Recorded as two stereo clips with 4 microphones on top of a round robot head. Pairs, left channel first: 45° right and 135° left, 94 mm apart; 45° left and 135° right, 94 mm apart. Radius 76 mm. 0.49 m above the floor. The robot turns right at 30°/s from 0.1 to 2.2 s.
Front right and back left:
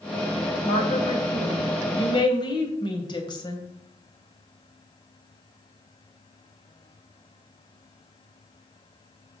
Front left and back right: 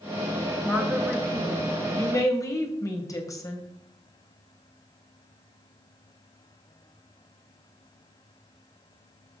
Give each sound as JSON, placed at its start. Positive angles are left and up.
{"t": 0.7, "sound": "a woman speaking", "azimuth_deg": -55, "distance_m": 3.0}